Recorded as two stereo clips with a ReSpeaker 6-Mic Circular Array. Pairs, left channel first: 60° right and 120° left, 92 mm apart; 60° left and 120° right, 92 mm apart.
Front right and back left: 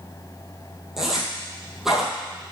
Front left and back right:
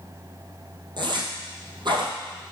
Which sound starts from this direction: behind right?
A zipper, at 1.0 s.